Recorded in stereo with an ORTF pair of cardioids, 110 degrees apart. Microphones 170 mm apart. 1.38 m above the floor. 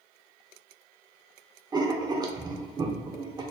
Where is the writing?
25° right, 1.0 m.